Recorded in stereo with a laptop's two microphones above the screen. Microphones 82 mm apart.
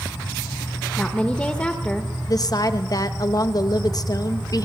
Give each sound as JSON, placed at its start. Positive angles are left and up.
{"t": 1.0, "sound": "a woman speaking", "side_deg": 10, "distance_m": 0.8}
{"t": 2.3, "sound": "a woman speaking", "side_deg": 50, "distance_m": 0.9}